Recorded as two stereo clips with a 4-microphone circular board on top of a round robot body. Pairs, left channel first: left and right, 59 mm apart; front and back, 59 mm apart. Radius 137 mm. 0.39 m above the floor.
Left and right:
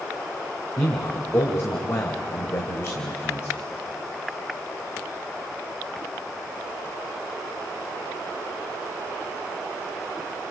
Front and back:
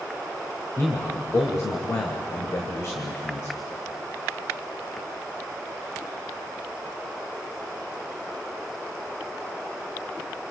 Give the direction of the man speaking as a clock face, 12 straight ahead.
11 o'clock.